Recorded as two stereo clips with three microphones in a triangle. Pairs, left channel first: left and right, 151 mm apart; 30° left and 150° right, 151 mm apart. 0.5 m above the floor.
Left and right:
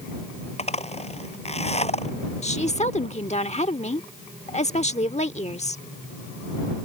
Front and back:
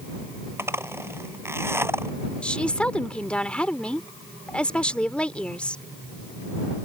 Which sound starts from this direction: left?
A woman speaking, at 2.4 s.